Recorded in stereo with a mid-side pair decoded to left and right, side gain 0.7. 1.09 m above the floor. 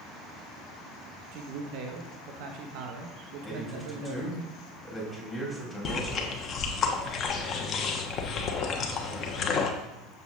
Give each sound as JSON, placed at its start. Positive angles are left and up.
{"t": 1.3, "sound": "a man speaking", "azimuth_deg": -65, "distance_m": 1.2}
{"t": 3.4, "sound": "a man speaking", "azimuth_deg": 10, "distance_m": 3.5}
{"t": 5.8, "sound": "chewing", "azimuth_deg": 40, "distance_m": 1.2}